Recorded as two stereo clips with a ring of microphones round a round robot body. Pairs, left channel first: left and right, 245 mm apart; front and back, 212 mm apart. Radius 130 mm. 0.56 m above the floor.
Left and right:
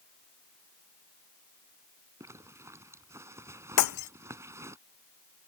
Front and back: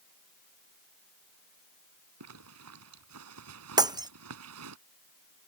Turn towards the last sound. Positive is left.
turn(degrees=110)